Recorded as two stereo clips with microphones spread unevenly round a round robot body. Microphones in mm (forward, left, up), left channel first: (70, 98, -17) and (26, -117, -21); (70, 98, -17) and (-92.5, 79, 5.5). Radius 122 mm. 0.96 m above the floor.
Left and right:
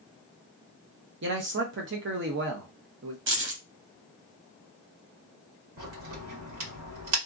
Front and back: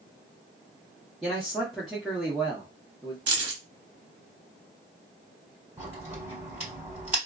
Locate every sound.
1.2 s a man speaking: 80° right, 0.7 m
3.3 s keys jangling: 145° right, 0.8 m
5.8 s a crack: 85° right, 1.7 m